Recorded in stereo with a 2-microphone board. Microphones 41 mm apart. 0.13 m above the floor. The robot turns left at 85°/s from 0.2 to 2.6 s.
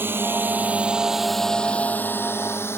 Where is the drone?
60° right (ahead or behind); by 2.8 s 75° left (ahead or behind).